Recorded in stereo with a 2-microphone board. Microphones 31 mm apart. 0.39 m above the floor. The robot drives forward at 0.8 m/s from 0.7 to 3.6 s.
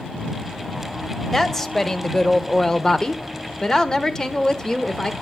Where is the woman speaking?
15° left (ahead or behind), 1.9 m; by 5.1 s 20° left (ahead or behind), 1.2 m.